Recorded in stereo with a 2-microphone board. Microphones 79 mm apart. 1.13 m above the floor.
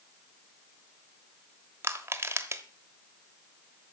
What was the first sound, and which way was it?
Crushing, 30° right (ahead or behind).